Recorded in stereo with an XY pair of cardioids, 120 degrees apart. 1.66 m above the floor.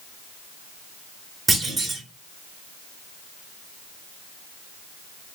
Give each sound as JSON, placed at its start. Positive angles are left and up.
{"t": 1.5, "sound": "a clunk", "azimuth_deg": -25, "distance_m": 1.7}